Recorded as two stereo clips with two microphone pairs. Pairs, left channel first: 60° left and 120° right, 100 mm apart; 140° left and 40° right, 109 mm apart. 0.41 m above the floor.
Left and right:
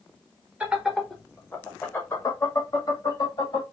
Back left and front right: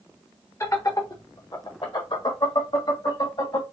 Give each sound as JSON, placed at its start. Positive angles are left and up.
{"t": 0.6, "sound": "laughter", "azimuth_deg": 175, "distance_m": 1.0}